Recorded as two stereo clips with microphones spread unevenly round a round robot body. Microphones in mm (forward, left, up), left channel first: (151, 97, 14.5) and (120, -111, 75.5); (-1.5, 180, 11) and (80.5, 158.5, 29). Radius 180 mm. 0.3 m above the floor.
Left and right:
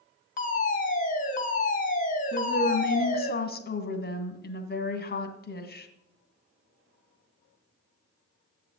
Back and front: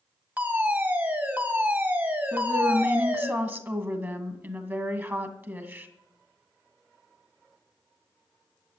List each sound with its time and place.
0.4 s a fire alarm: 60° left, 3 m
2.3 s a woman speaking: 55° left, 2 m